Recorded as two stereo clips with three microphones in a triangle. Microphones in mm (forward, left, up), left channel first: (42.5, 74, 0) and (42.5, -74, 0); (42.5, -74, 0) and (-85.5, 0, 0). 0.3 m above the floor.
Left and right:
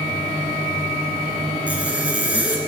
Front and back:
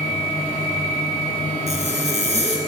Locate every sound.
1.7 s a zipper: 170° right, 2.5 m